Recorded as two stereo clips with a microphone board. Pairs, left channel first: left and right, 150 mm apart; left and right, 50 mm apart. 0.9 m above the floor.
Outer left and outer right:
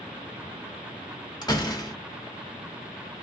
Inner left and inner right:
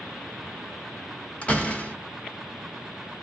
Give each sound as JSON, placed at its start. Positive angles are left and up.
{"t": 1.4, "sound": "a door slam", "side_deg": 25, "distance_m": 0.9}